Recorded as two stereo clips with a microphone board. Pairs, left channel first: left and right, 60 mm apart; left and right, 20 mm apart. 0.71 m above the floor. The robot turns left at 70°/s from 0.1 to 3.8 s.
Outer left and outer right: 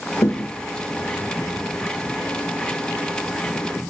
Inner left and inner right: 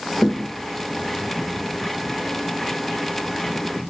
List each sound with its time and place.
0.2 s a thud: 60° left (ahead or behind), 1.0 m; by 0.5 s 40° left (ahead or behind), 1.0 m